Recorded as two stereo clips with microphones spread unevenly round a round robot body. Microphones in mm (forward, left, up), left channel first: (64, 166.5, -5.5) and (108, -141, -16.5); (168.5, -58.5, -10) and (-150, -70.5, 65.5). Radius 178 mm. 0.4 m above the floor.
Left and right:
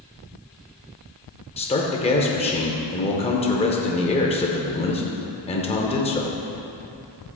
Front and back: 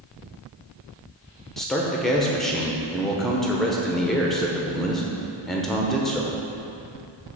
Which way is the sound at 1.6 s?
50° left.